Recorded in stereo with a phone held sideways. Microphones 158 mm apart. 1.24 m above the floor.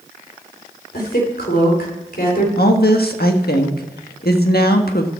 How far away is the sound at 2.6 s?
About 1.4 m.